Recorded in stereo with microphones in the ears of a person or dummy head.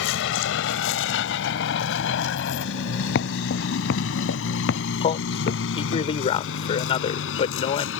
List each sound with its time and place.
0.0 s a vehicle: 80° left; by 8.0 s 85° left
3.1 s footsteps: 70° left (ahead or behind); by 6.0 s 80° left
5.0 s a man speaking: 35° left (ahead or behind)